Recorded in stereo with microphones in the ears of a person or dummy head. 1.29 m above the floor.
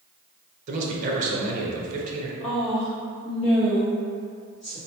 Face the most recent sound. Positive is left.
turn(degrees=35)  # may be behind; listen again after turning